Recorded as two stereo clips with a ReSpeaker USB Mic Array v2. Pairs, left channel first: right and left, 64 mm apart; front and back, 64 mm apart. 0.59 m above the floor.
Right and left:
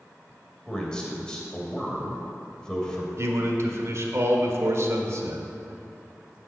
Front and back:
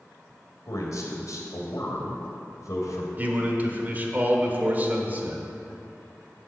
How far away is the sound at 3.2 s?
About 1.4 m.